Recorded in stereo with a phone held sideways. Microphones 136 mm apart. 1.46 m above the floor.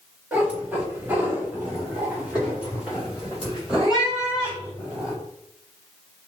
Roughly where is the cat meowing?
Centre.